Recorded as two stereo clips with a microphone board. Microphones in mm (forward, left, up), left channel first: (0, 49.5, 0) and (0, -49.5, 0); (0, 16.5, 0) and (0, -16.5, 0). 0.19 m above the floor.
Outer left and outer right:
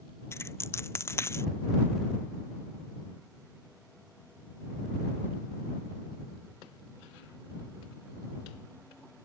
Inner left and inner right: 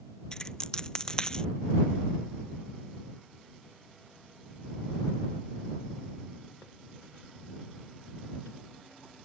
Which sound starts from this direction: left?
A dropped coin, at 0.3 s.